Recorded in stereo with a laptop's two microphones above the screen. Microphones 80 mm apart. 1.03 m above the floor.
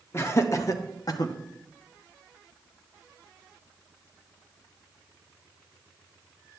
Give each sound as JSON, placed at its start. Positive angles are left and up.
{"t": 0.1, "sound": "laughter", "side_deg": 35, "distance_m": 1.3}